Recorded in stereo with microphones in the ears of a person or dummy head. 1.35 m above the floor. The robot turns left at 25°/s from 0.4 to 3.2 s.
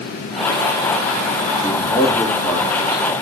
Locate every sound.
1.6 s a man speaking: 30° left, 4 m; by 3.0 s 5° right, 4 m